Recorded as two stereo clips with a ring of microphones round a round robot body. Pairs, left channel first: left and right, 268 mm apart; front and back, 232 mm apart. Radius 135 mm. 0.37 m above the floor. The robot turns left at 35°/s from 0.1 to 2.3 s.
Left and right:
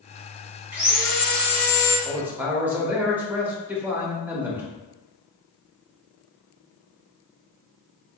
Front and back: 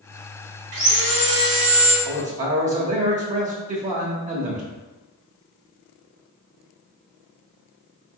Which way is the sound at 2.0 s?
160° right.